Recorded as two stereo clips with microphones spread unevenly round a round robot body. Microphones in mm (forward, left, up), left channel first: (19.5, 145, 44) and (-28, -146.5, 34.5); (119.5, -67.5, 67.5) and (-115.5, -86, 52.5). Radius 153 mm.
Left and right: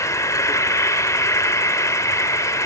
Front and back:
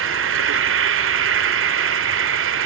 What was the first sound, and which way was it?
An insect, 160° left.